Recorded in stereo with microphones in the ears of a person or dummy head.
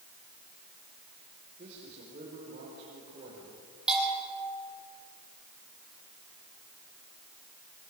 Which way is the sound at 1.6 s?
40° right (ahead or behind).